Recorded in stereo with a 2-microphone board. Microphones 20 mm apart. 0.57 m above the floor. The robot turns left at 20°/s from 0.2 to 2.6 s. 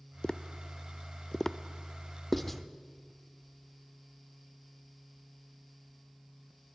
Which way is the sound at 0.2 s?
45° left (ahead or behind).